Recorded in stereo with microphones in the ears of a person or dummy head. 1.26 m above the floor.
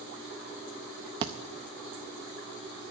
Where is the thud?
25° right (ahead or behind), 0.6 m.